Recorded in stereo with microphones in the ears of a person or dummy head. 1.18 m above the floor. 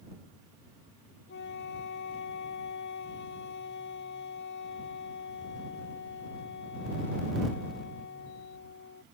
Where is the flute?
60° left (ahead or behind).